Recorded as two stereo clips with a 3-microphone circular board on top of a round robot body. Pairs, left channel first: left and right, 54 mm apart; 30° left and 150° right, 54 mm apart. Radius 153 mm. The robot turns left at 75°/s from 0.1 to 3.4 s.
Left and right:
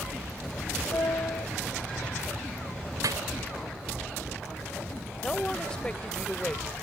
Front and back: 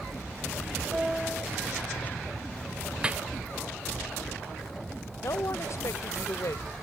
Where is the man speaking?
15° left.